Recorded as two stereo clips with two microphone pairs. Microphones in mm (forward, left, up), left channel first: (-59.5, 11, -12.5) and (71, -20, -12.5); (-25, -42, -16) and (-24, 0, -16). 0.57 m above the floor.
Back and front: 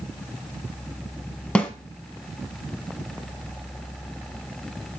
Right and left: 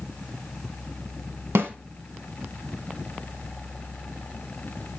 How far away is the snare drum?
About 1.1 m.